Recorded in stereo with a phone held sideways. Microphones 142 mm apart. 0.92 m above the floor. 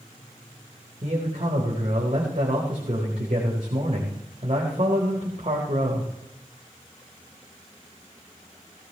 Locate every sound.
1.0 s a man speaking: 55° right (ahead or behind), 4 m